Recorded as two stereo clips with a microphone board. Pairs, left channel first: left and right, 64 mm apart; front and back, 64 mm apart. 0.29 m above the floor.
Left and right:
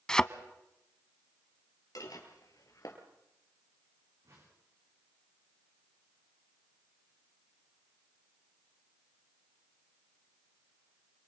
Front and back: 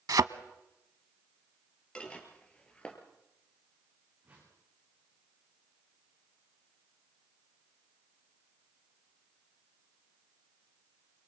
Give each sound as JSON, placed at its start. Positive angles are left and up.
{"t": 0.1, "sound": "a thud", "azimuth_deg": 170, "distance_m": 0.7}
{"t": 1.9, "sound": "dishes clattering", "azimuth_deg": 70, "distance_m": 3.5}
{"t": 4.2, "sound": "a whoosh", "azimuth_deg": -120, "distance_m": 9.5}